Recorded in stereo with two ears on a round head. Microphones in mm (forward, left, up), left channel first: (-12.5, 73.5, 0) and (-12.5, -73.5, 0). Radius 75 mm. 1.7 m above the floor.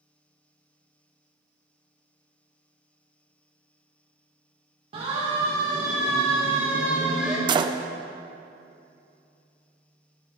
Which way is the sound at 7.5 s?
30° right (ahead or behind).